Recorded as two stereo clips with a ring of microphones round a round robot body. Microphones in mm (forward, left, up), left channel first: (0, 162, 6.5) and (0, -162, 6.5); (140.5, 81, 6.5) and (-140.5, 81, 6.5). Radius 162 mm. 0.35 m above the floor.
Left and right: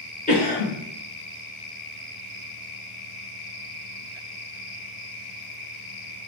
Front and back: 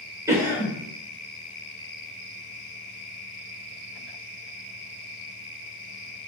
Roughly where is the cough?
Behind left.